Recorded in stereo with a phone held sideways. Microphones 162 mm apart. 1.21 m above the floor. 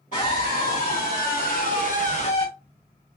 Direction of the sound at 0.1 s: 55° left (ahead or behind).